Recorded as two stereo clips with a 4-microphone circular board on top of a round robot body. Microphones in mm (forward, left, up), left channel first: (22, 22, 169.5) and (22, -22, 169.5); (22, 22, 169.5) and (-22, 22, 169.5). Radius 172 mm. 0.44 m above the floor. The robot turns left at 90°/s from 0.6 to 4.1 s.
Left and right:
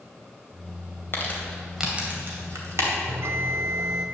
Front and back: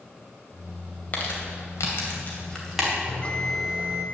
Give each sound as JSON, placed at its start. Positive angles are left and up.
{"t": 1.1, "sound": "crumpling", "azimuth_deg": 55, "distance_m": 2.5}
{"t": 3.1, "sound": "a bell", "azimuth_deg": -50, "distance_m": 0.7}